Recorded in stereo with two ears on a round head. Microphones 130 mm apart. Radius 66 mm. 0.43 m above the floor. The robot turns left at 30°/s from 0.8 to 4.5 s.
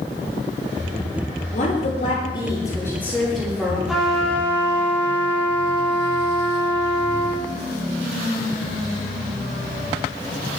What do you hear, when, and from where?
1.5 s a woman speaking: 55° left, 9 m; by 3.8 s 10° right, 9 m
3.9 s a trumpet: 5° right (ahead or behind), 5.5 m; by 7.4 s 15° left (ahead or behind), 5.5 m